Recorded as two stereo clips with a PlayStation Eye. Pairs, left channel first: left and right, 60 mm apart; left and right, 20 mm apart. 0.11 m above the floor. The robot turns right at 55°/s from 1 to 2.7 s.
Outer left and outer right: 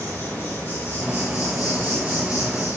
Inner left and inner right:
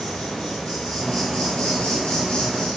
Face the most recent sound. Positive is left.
turn(degrees=130)